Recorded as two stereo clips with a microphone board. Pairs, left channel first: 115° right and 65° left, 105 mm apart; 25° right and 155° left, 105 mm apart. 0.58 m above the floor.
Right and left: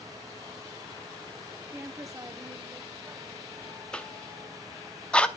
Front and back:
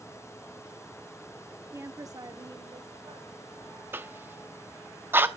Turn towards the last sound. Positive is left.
turn(degrees=180)